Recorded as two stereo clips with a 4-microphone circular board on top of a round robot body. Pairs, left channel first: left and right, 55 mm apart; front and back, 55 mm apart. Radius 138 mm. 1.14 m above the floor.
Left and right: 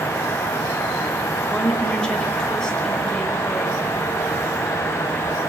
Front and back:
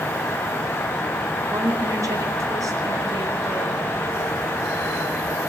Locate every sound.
1.5 s a woman speaking: 165° left, 5.5 m